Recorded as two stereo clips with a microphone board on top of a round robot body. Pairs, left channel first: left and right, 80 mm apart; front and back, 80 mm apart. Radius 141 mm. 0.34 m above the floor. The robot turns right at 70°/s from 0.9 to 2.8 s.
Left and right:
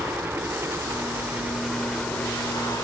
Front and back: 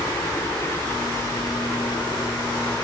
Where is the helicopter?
35° right; by 2.8 s 55° left.